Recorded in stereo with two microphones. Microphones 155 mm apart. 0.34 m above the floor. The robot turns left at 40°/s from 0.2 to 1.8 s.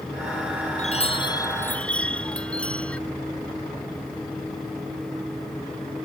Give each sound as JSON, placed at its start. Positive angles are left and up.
{"t": 0.8, "sound": "a chime", "azimuth_deg": 45}